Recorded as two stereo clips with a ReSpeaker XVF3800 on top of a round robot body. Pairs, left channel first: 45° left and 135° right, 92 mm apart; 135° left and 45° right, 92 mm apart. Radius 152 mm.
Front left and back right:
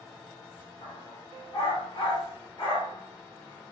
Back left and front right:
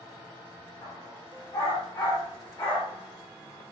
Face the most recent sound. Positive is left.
turn(degrees=75)